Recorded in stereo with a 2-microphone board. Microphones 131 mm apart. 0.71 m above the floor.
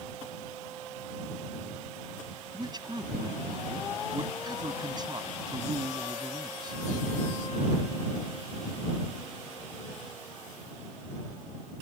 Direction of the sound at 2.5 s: 35° right (ahead or behind).